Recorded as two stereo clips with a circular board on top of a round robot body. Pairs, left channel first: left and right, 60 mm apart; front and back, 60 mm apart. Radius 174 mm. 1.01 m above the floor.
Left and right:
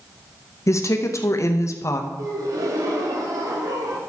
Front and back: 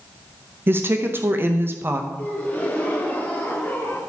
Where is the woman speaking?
125° left, 0.9 m.